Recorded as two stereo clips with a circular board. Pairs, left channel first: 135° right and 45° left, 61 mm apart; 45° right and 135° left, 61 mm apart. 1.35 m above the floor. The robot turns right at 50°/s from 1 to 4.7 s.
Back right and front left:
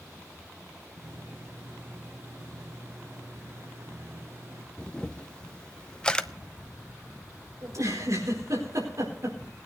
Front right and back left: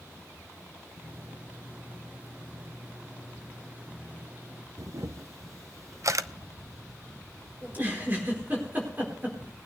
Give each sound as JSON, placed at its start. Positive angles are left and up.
{"t": 4.8, "sound": "a camera shutter", "azimuth_deg": 150, "distance_m": 0.5}
{"t": 7.6, "sound": "a giggle", "azimuth_deg": 75, "distance_m": 4.5}